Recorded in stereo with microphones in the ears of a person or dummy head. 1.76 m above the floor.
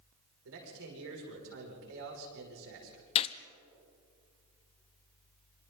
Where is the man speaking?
70° right (ahead or behind), 6 m.